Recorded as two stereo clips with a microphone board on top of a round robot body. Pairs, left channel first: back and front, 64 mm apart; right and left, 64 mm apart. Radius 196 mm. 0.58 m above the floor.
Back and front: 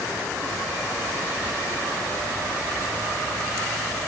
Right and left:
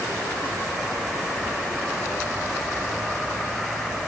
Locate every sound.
Only background noise.